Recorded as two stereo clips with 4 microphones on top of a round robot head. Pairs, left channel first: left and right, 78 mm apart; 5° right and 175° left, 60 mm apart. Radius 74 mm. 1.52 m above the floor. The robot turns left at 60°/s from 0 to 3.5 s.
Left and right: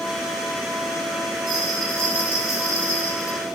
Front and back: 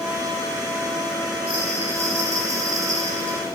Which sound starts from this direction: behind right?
A bell, at 1.5 s.